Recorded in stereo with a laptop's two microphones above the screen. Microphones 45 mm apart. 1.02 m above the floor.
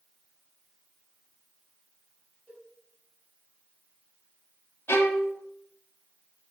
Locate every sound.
2.5 s a cowbell: 20° right (ahead or behind), 4 m
4.9 s a violin: 65° left (ahead or behind), 0.7 m